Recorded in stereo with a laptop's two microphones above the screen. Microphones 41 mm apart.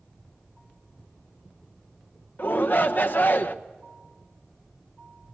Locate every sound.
2.4 s a shout: 50° left (ahead or behind), 1.1 m